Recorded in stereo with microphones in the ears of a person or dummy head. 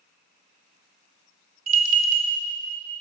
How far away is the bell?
About 0.7 m.